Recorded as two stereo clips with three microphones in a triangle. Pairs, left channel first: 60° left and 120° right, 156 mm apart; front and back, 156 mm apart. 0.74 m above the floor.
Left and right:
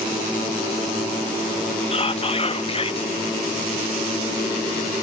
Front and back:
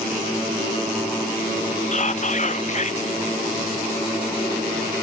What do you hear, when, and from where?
1.9 s whispering: 20° left, 0.7 m